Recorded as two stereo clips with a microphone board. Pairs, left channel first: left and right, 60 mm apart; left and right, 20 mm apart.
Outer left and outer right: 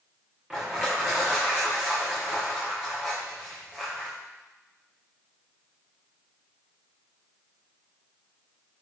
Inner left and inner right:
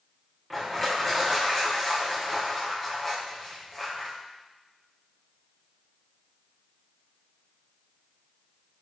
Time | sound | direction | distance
0.5 | crushing | 15° right (ahead or behind) | 7 m